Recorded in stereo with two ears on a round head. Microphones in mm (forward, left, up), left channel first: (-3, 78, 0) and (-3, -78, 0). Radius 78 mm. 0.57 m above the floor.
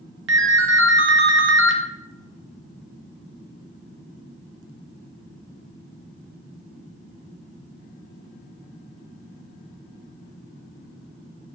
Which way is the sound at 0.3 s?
75° right (ahead or behind).